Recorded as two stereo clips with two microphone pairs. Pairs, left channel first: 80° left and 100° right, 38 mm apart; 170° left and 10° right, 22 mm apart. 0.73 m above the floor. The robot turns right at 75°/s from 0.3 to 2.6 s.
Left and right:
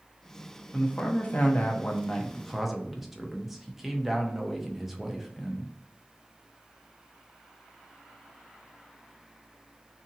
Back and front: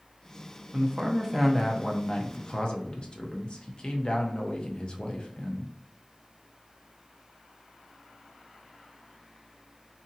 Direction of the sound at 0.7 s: 30° left.